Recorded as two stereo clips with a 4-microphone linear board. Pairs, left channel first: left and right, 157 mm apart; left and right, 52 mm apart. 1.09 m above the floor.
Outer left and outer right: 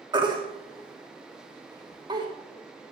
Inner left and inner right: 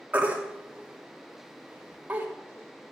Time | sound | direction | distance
0.1 | a baby crying | 25° right (ahead or behind) | 2.0 m